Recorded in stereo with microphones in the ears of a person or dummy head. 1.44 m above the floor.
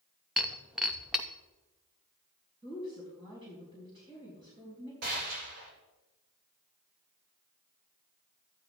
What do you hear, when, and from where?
0.4 s breaking glass: 5° right (ahead or behind), 0.8 m
2.6 s a woman speaking: 30° right (ahead or behind), 4 m
5.0 s a gunshot: 55° right (ahead or behind), 2 m